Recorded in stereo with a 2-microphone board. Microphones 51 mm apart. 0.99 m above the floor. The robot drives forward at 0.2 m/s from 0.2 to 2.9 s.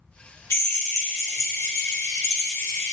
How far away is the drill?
About 1.6 m.